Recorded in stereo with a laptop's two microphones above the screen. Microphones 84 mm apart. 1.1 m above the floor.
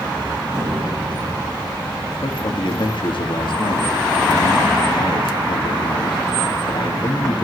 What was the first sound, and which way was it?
An explosion, 40° right (ahead or behind).